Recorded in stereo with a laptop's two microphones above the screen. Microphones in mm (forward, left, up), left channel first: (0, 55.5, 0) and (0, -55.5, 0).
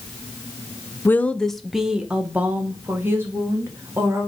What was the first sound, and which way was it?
A woman speaking, 20° left (ahead or behind).